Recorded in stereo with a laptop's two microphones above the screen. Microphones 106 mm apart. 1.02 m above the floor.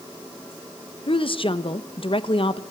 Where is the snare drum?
I don't hear a snare drum.